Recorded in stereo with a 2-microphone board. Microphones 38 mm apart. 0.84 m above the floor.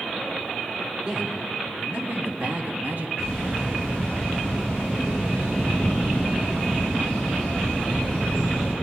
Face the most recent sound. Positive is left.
turn(degrees=-75)  # may be behind; listen again after turning